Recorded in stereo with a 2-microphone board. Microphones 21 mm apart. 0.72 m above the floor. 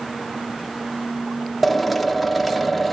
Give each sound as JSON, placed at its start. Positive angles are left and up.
{"t": 1.6, "sound": "a drill", "side_deg": -5, "distance_m": 1.2}